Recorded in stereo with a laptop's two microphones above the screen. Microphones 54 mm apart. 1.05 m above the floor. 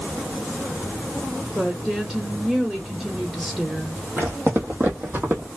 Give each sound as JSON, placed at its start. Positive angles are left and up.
{"t": 1.6, "sound": "a woman speaking", "side_deg": -20, "distance_m": 1.4}
{"t": 4.2, "sound": "footsteps", "side_deg": -50, "distance_m": 1.6}